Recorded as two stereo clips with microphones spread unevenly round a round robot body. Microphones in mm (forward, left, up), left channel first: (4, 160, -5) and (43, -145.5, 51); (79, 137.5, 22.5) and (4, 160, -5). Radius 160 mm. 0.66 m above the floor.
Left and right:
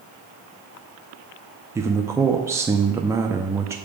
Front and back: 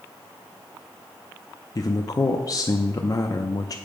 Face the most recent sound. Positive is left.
turn(degrees=10)